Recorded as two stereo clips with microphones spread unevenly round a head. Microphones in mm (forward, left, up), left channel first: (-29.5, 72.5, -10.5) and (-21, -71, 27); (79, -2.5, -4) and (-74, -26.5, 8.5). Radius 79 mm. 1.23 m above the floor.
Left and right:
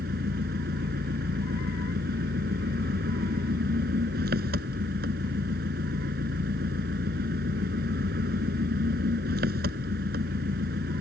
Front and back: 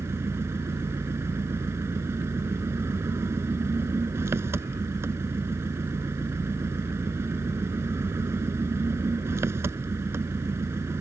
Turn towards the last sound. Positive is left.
turn(degrees=-95)